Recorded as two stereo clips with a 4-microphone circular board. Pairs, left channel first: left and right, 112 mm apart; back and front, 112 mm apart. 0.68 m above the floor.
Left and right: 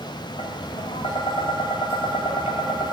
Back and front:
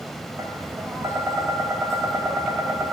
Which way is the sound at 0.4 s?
65° left.